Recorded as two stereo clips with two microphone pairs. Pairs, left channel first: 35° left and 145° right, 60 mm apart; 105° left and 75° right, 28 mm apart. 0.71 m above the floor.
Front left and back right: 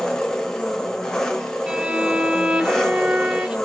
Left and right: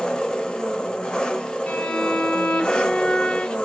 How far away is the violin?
About 0.5 m.